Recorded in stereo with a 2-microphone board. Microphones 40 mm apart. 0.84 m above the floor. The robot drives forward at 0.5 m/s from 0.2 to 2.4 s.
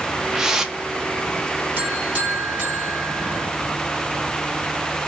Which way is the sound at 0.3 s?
10° right (ahead or behind).